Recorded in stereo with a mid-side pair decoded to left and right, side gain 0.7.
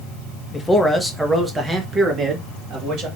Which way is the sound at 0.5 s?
15° left.